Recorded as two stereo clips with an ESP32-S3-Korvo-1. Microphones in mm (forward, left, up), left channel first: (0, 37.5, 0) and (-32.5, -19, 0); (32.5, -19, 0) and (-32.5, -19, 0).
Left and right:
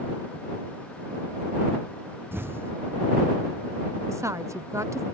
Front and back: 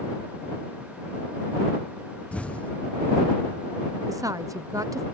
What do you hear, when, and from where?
2.3 s an explosion: 70° right
4.1 s a woman speaking: 160° right